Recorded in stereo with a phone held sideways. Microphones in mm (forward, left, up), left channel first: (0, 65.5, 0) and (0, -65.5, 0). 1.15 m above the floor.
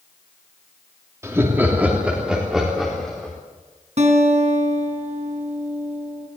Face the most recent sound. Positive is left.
turn(degrees=-60)  # may be behind; listen again after turning